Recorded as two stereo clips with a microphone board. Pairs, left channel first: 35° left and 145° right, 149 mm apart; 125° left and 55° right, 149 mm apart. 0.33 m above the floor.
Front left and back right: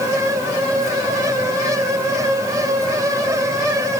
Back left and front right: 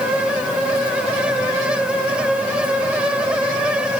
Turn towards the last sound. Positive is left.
No sound to turn to.